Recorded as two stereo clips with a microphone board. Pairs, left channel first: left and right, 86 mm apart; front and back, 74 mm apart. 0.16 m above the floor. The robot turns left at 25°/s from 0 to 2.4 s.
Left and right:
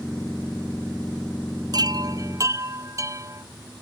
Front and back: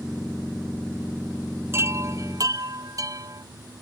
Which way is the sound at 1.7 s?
125° right.